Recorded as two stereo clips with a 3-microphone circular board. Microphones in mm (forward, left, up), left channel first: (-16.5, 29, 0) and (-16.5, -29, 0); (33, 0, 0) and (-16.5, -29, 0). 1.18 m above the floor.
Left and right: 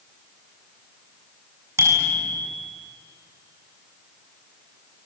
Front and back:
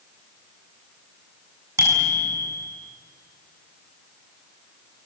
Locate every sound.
1.8 s a bicycle bell: 120° right, 7.5 m